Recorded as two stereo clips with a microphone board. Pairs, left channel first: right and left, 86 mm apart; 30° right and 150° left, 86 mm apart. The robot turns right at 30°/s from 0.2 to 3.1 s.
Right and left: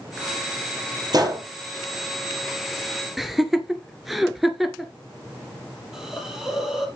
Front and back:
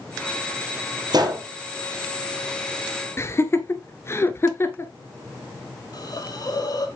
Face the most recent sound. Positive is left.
turn(degrees=5)